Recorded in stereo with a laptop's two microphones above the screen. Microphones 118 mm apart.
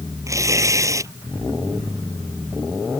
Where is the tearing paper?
30° right (ahead or behind).